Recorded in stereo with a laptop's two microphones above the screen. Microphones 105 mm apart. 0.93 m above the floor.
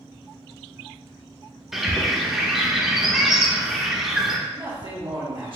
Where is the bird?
5° right (ahead or behind), 0.8 m.